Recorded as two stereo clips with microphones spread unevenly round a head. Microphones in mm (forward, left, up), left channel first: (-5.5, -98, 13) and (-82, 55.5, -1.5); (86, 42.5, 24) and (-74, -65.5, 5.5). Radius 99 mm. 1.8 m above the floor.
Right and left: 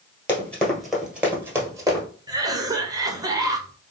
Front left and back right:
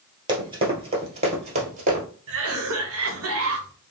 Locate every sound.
0.3 s running footsteps: 100° right, 1.9 m; by 2.0 s 175° left, 2 m
2.3 s a cough: 170° right, 1.3 m